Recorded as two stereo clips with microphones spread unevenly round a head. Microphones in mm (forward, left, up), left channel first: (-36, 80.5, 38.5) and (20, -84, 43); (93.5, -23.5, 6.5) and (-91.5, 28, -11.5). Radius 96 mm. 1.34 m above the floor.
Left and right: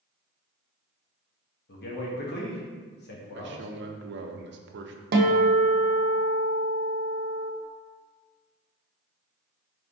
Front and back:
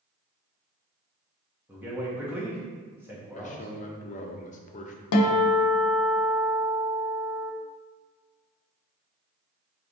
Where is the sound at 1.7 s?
85° left, 1.1 m.